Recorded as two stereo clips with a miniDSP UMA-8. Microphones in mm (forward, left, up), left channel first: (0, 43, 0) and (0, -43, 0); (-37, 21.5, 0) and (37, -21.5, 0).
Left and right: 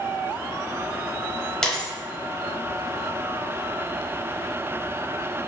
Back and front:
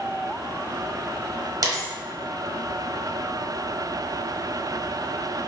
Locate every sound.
1.6 s a dropped coin: 10° left, 0.8 m